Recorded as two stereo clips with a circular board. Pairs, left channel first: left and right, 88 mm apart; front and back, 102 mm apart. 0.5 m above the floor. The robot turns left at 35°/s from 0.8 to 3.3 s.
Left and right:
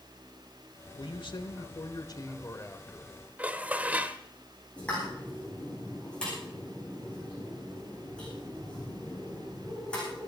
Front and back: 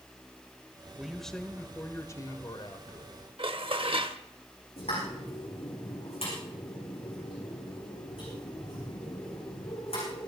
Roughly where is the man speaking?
Left.